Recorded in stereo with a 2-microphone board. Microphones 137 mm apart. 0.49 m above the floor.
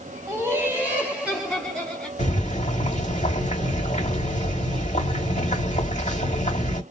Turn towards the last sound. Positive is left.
turn(degrees=60)  # may be behind; listen again after turning